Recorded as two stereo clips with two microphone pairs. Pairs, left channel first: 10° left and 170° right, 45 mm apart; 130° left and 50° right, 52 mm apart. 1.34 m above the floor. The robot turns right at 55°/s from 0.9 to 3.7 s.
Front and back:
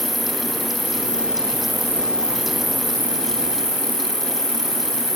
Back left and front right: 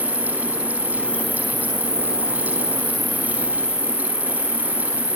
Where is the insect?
125° right; by 5.2 s 30° left.